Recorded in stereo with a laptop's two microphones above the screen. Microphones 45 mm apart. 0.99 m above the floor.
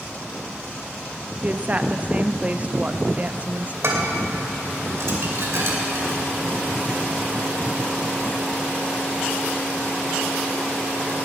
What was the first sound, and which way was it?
A woman speaking, 30° right (ahead or behind).